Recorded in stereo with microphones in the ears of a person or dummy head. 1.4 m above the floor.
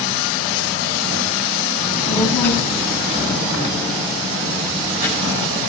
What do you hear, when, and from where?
1.8 s a child speaking: 15° left (ahead or behind), 6.5 m; by 5.6 s 20° right (ahead or behind), 4.5 m